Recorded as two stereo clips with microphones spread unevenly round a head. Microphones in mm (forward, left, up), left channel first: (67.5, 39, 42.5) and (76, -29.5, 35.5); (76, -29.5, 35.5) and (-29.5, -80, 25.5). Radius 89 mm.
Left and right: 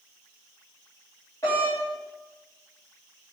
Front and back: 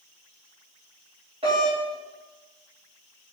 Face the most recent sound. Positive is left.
turn(degrees=165)